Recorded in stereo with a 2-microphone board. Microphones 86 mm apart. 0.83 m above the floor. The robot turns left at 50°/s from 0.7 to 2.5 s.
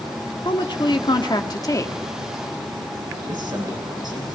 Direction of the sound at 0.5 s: 100° left.